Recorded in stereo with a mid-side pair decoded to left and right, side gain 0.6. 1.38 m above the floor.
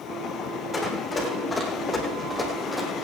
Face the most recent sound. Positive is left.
turn(degrees=5)